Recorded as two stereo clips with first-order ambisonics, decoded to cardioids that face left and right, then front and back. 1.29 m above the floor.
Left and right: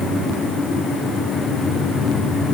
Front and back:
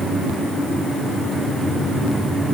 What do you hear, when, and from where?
Only background noise.